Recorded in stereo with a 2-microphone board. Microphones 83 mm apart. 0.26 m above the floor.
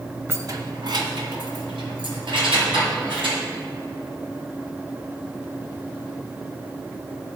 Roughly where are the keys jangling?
Right.